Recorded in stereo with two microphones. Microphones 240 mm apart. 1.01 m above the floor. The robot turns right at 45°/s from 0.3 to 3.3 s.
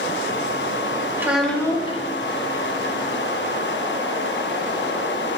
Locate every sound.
1.2 s a child speaking: 10° right, 1.0 m; by 2.0 s 25° left, 1.0 m